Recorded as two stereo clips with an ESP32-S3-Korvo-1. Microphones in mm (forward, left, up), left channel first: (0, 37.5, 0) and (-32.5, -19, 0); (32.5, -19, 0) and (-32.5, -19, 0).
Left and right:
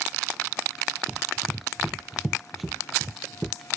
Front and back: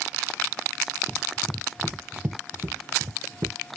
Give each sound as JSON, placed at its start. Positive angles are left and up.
{"t": 1.1, "sound": "running footsteps", "azimuth_deg": -55}